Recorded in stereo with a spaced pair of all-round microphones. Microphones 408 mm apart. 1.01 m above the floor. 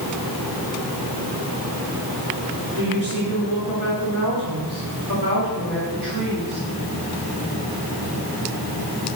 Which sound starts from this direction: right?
A woman speaking, at 2.8 s.